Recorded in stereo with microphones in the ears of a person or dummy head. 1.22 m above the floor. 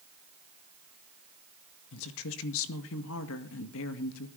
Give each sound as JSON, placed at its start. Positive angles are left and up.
{"t": 1.9, "sound": "a woman speaking", "side_deg": 70, "distance_m": 1.9}